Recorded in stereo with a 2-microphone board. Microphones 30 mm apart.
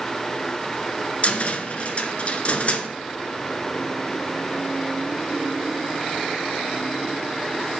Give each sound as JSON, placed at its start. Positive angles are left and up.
{"t": 1.2, "sound": "a cupboard door", "side_deg": 45, "distance_m": 1.0}